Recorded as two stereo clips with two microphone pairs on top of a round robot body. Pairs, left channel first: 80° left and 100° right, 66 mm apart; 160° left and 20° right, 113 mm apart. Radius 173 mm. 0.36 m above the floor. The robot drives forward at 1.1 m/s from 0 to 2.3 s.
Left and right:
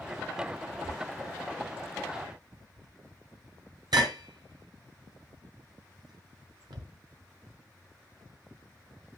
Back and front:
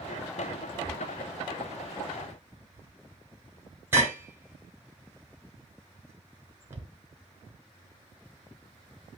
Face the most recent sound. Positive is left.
turn(degrees=-90)